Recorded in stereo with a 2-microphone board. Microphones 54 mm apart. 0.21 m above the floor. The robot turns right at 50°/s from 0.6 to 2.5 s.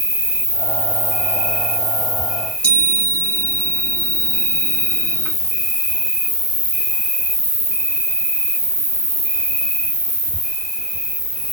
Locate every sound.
0.0 s an insect: 65° right, 1.7 m; by 11.5 s 30° left, 1.7 m
2.6 s a chime: 20° left (ahead or behind), 1.9 m